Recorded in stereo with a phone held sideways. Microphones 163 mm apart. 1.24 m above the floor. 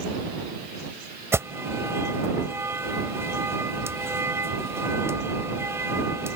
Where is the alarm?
15° right (ahead or behind).